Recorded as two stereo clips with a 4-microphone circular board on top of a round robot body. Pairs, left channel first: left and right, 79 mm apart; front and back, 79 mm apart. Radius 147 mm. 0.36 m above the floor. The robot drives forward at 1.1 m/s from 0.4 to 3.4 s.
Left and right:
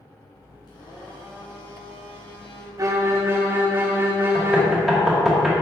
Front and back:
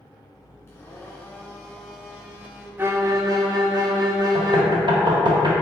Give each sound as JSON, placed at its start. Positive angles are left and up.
{"t": 0.7, "sound": "a blender", "azimuth_deg": 55, "distance_m": 2.5}
{"t": 2.8, "sound": "a violin", "azimuth_deg": -125, "distance_m": 1.0}
{"t": 4.3, "sound": "knocking", "azimuth_deg": 180, "distance_m": 1.7}